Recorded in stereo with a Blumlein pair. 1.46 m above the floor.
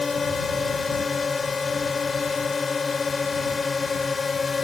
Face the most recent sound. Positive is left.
turn(degrees=15)